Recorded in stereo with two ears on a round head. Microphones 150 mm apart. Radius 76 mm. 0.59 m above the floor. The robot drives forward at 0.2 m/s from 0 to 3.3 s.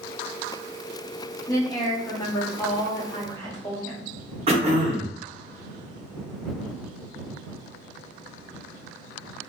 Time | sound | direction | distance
1.5 | a woman speaking | 20° left (ahead or behind) | 0.6 m
4.5 | throat clearing | 40° right (ahead or behind) | 0.6 m